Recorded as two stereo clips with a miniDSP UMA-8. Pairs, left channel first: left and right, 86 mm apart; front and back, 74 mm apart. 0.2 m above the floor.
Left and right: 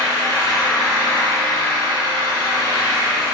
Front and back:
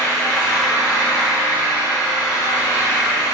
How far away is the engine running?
About 1.7 m.